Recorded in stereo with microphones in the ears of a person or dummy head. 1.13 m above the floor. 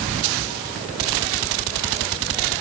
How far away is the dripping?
I don't hear dripping.